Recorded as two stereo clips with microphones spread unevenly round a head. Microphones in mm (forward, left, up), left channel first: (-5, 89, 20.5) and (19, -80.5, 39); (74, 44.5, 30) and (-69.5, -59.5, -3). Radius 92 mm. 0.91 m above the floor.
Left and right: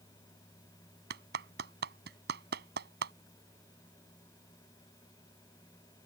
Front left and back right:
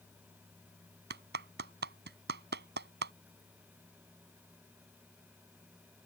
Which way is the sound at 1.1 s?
115° right.